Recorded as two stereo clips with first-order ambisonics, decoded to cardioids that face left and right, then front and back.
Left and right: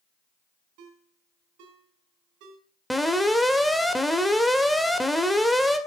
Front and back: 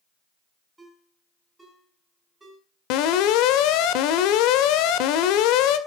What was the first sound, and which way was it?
A ringtone, 100° right.